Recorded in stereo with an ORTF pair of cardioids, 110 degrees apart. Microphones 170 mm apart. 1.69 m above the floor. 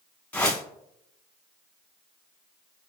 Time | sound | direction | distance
0.3 | a whoosh | 10° left | 1.6 m